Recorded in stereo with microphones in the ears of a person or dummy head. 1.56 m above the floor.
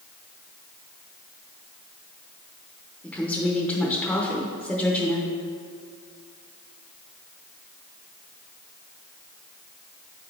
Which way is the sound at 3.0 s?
5° left (ahead or behind).